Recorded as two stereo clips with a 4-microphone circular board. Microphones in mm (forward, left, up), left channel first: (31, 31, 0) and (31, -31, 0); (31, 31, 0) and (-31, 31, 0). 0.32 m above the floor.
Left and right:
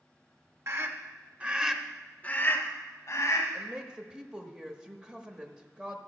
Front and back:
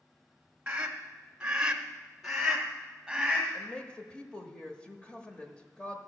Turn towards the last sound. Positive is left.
turn(degrees=-40)